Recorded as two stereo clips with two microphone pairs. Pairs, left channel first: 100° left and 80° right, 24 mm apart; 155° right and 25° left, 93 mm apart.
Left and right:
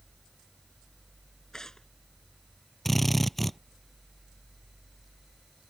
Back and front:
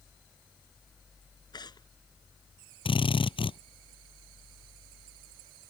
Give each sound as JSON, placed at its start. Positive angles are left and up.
{"t": 1.5, "sound": "tearing paper", "azimuth_deg": 165}
{"t": 2.9, "sound": "a drill", "azimuth_deg": 180}